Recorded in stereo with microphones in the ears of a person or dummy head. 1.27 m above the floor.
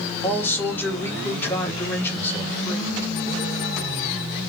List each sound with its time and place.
0.2 s a man speaking: 10° left (ahead or behind), 2.5 m